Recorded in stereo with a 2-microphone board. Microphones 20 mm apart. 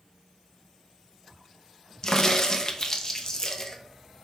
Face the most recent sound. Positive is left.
turn(degrees=30)  # may be behind; listen again after turning